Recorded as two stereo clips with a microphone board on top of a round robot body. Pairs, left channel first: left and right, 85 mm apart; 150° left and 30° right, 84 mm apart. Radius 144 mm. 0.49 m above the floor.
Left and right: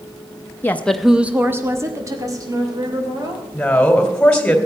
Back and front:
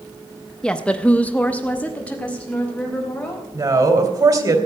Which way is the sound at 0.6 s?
80° left.